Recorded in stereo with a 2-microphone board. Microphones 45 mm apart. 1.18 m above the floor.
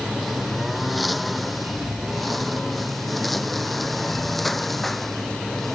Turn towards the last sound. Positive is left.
turn(degrees=5)  # may be behind; listen again after turning